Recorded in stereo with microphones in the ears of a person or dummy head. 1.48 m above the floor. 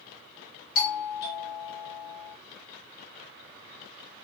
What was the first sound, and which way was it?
A doorbell, 60° left (ahead or behind).